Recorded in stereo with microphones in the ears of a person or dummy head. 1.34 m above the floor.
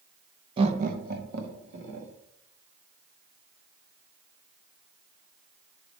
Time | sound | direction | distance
0.6 | laughter | 35° right (ahead or behind) | 0.9 m